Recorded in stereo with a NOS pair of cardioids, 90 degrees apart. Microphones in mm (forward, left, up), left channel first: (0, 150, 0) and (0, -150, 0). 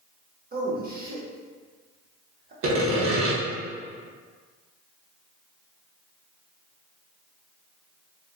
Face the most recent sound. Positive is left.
turn(degrees=-45)